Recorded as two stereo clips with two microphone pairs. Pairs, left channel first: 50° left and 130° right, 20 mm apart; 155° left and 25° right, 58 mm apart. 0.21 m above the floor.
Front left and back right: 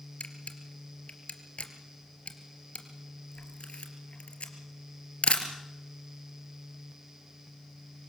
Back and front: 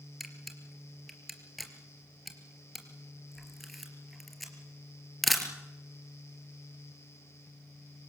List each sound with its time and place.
0.2 s a camera shutter: 65° left, 3 m